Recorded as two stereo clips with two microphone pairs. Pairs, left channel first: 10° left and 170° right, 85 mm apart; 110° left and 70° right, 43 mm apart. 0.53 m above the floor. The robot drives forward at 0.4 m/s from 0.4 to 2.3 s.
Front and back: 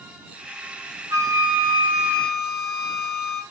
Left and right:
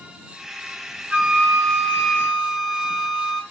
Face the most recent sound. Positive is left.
turn(degrees=-140)